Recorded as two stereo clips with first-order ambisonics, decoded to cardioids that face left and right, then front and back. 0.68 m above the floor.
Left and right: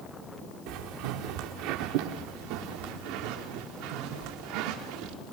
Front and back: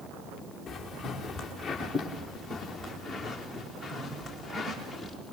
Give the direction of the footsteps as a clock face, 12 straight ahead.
3 o'clock.